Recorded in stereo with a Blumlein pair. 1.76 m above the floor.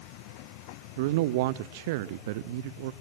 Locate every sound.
1.0 s a man speaking: 50° right, 0.7 m